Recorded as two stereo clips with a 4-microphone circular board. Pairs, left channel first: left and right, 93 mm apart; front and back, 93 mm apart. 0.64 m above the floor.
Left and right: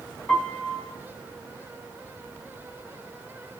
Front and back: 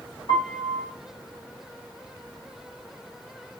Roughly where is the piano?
Ahead.